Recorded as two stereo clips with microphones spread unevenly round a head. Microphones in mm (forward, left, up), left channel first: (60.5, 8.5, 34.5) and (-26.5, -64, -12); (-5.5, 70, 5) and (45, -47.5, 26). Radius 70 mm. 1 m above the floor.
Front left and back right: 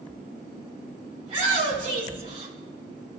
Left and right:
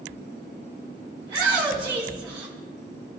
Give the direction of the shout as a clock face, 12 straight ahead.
4 o'clock.